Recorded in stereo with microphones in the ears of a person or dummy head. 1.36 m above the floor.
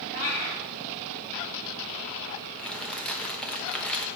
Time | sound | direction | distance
0.1 | a cat meowing | 60° left (ahead or behind) | 2.5 m
2.6 | crumpling | 10° left (ahead or behind) | 0.8 m